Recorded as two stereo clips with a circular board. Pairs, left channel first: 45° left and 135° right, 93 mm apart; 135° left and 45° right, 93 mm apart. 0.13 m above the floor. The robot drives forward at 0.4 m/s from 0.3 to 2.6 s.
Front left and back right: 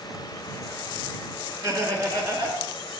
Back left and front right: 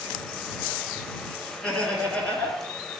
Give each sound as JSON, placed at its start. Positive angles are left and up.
{"t": 1.6, "sound": "laughter", "azimuth_deg": -150, "distance_m": 1.4}